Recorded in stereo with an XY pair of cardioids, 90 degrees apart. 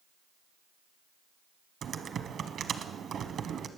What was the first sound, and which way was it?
Typing on a keyboard, 70° right.